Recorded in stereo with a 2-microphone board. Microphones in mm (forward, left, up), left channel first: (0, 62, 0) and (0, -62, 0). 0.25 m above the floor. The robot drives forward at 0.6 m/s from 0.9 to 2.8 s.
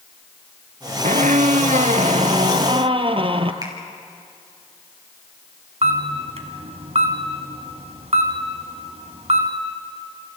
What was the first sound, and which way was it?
A squeak, 75° right (ahead or behind).